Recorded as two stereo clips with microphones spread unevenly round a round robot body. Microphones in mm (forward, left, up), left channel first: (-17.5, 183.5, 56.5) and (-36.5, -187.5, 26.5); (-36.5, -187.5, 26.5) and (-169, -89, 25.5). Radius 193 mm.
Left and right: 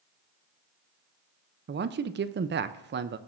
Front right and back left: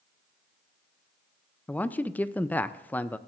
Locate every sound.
1.7 s a man speaking: 110° right, 0.5 m